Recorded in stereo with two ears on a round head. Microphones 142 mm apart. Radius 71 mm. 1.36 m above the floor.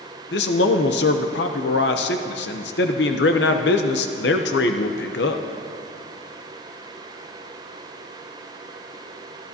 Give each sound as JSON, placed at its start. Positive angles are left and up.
{"t": 0.3, "sound": "a man speaking", "side_deg": 80, "distance_m": 0.7}